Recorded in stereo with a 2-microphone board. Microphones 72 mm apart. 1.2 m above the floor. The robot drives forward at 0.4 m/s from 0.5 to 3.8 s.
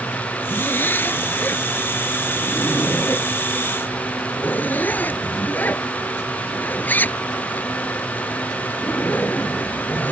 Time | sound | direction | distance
0.5 | a zipper | 25° left (ahead or behind) | ?